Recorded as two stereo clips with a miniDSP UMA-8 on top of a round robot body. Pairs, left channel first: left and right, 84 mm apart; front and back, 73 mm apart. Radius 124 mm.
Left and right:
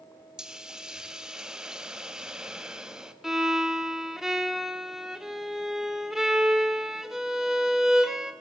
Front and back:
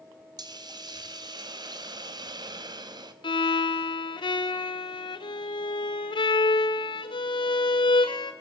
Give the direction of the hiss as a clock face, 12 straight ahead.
6 o'clock.